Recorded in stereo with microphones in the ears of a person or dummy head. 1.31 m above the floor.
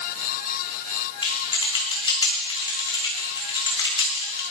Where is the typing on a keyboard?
30° left (ahead or behind), 2.5 m.